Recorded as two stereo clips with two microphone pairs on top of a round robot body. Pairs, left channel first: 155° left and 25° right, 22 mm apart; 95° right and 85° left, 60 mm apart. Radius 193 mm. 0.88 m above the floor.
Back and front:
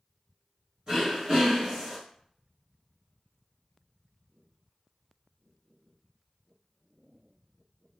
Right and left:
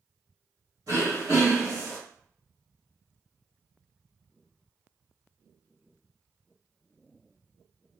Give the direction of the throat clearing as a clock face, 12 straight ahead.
10 o'clock.